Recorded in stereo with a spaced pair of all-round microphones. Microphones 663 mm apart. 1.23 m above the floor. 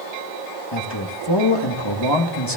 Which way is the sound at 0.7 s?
40° left (ahead or behind).